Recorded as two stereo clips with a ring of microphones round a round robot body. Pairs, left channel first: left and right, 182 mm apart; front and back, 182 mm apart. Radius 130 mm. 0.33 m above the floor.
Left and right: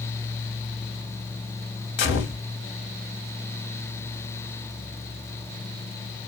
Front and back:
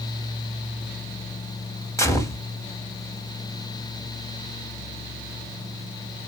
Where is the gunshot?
75° left, 0.7 m.